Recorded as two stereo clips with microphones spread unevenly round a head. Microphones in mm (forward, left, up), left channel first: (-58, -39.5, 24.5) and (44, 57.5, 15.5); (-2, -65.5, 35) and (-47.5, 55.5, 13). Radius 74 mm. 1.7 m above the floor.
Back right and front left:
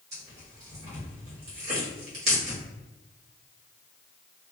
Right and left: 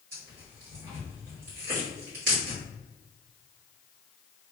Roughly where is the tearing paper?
Left.